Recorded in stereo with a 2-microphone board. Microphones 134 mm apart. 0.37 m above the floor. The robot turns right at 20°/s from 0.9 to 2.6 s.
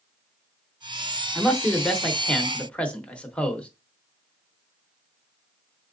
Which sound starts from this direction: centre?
A man speaking, at 1.4 s.